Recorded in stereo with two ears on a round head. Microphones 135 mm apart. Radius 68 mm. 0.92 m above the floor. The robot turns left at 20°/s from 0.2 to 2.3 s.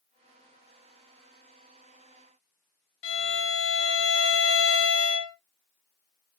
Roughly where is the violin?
Left.